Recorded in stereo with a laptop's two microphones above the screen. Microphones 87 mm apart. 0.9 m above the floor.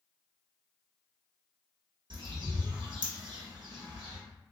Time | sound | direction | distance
2.1 | a bird | 60° right (ahead or behind) | 1.2 m